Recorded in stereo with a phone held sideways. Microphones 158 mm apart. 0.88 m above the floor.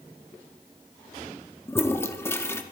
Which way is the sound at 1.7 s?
15° left (ahead or behind).